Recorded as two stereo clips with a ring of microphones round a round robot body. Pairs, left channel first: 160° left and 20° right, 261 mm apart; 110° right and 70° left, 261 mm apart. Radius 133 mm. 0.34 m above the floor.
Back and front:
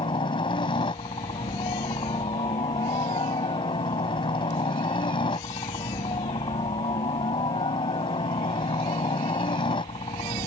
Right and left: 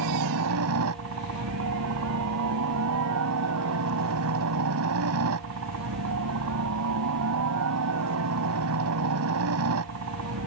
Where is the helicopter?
90° left.